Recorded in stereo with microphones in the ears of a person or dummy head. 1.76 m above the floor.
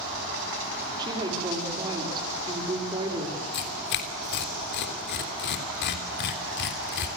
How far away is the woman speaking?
About 5 m.